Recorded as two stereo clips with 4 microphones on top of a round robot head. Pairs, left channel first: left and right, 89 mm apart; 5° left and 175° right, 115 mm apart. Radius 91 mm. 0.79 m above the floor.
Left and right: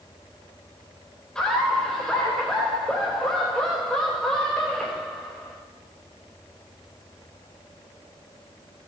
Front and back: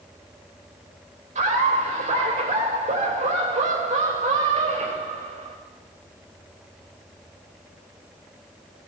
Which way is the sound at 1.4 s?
175° left.